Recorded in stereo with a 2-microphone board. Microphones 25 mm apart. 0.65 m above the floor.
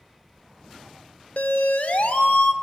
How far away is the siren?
About 2.5 m.